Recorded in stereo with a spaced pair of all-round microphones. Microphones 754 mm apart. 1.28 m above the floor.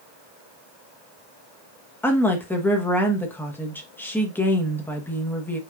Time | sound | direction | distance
2.0 | a woman speaking | 5° left (ahead or behind) | 1.1 m